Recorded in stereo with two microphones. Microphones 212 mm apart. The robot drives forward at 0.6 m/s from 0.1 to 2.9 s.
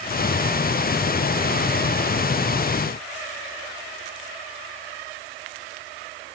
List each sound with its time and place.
Only background noise.